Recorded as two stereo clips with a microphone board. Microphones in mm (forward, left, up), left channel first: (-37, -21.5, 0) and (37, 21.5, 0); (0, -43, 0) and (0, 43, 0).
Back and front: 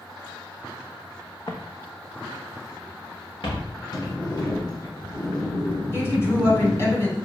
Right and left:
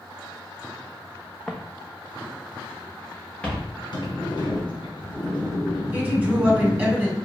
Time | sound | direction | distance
1.5 | footsteps | 175° right | 0.7 m
3.9 | a sliding door | 115° right | 1.7 m
5.9 | a woman speaking | 160° left | 1.9 m